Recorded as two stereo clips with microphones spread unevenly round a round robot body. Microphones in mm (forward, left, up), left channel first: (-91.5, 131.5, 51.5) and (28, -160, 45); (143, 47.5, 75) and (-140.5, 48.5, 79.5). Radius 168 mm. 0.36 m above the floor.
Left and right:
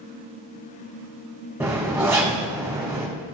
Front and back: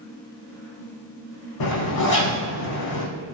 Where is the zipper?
15° left, 5 m.